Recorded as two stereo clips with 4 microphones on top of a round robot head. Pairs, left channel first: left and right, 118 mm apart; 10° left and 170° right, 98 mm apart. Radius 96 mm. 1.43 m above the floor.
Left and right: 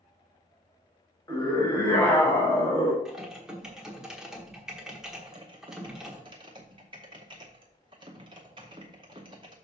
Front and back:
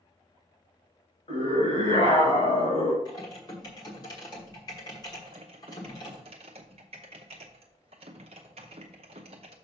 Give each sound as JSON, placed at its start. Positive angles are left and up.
{"t": 1.3, "sound": "a scream", "azimuth_deg": 20, "distance_m": 5.0}
{"t": 3.0, "sound": "typing on a keyboard", "azimuth_deg": -10, "distance_m": 1.1}
{"t": 5.2, "sound": "typing on a keyboard", "azimuth_deg": -145, "distance_m": 0.6}